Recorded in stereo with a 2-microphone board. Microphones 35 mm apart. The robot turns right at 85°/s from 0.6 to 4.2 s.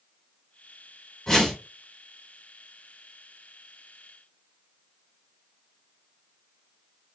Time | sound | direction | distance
1.3 | a whoosh | 160° left | 1.0 m